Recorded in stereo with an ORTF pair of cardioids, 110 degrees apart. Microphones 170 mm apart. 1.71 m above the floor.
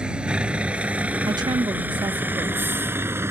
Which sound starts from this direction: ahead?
A vehicle, at 0.0 s.